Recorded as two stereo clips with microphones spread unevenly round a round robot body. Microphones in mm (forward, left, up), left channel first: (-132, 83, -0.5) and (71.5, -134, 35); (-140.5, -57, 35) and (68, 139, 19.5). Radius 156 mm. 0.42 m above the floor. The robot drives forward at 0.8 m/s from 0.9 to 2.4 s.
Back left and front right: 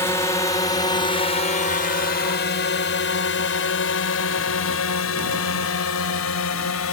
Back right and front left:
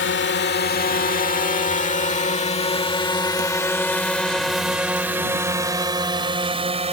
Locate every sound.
0.0 s a drone: 160° right; by 6.9 s 105° left